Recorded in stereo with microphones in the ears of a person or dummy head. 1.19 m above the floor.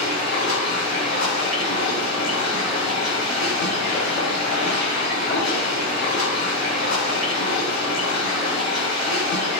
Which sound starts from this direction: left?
Running water, at 0.0 s.